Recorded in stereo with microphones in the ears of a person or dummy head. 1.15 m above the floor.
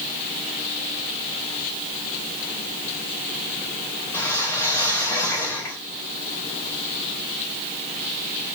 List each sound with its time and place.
4.1 s a whoosh: 15° left (ahead or behind), 1.5 m